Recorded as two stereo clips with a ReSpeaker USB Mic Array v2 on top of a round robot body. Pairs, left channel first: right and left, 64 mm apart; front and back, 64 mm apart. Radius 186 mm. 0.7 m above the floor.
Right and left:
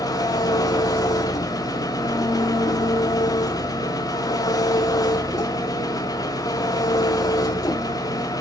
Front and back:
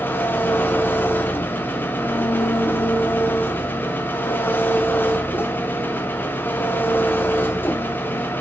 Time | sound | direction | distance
0.0 | an engine running | 60° right | 0.7 m